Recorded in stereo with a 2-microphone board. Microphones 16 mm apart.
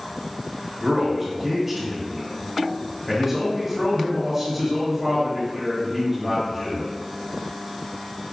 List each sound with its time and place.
0.8 s a man speaking: 10° right (ahead or behind), 1.5 m